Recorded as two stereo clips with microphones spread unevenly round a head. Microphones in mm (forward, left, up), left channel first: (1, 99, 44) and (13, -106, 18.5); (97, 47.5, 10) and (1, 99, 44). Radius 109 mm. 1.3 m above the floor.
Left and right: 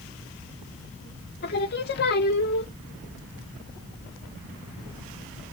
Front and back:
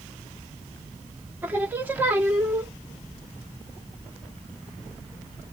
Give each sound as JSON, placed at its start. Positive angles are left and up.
{"t": 1.4, "sound": "singing", "azimuth_deg": 105, "distance_m": 0.7}